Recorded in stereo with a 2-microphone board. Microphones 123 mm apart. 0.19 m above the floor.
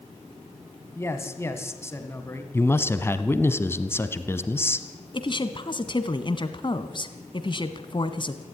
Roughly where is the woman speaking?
Left.